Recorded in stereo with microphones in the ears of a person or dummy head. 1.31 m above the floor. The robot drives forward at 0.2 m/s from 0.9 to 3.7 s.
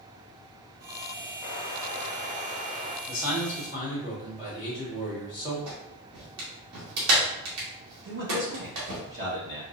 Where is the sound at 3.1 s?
10° right (ahead or behind), 2.5 m.